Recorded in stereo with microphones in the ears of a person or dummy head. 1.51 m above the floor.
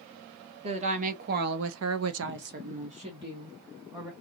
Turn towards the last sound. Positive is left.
turn(degrees=-15)  # may be behind; listen again after turning